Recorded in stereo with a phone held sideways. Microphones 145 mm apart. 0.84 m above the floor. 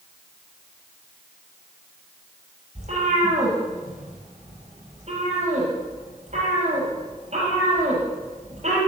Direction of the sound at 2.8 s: 50° right (ahead or behind).